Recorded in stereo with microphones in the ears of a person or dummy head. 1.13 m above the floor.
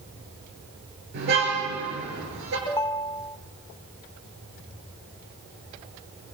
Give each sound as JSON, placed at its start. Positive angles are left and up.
{"t": 1.1, "sound": "a car horn", "side_deg": -60, "distance_m": 8.0}
{"t": 2.7, "sound": "a ringtone", "side_deg": 15, "distance_m": 0.7}